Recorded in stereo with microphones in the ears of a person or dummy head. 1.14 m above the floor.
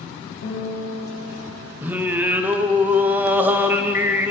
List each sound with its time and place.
0.4 s a guitar: 70° left (ahead or behind), 2.5 m
1.8 s singing: 10° right (ahead or behind), 0.5 m